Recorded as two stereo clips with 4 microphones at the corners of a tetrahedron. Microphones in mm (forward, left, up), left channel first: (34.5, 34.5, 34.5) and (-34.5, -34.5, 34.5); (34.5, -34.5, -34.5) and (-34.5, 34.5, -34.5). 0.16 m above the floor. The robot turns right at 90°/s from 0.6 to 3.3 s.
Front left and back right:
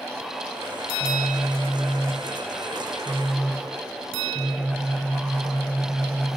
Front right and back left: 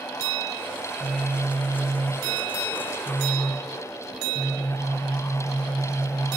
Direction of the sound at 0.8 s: 65° left.